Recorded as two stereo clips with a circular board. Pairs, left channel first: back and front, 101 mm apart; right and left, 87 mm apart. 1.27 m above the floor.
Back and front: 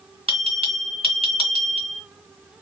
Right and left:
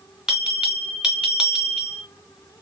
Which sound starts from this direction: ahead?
A bell, at 0.3 s.